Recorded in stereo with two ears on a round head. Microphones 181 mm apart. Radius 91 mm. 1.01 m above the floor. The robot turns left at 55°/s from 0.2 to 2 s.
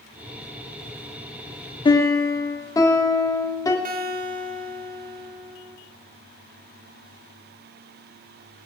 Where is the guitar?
45° right (ahead or behind), 1.4 m.